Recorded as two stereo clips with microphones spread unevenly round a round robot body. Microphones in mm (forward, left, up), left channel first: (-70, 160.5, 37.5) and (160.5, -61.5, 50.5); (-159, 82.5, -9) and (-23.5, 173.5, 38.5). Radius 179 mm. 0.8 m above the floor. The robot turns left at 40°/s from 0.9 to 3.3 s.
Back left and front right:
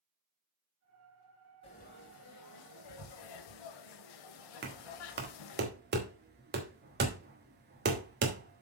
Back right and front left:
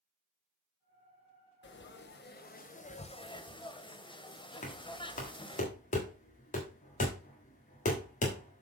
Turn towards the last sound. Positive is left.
turn(degrees=-105)